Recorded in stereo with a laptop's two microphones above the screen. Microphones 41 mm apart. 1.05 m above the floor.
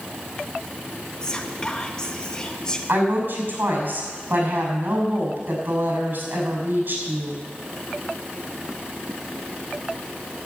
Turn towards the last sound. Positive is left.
turn(degrees=-60)  # may be behind; listen again after turning